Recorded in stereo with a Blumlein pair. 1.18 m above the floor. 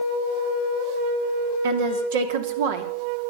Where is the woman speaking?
55° right, 2.5 m.